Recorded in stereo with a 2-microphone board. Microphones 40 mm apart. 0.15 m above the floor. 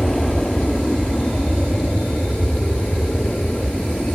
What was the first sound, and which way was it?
An aircraft, 10° left (ahead or behind).